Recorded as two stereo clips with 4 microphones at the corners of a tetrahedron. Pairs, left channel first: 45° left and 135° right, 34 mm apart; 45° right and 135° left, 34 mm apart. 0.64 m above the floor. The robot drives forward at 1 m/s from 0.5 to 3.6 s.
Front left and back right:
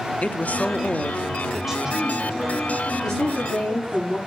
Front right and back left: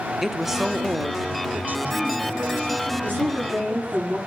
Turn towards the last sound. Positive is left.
turn(degrees=125)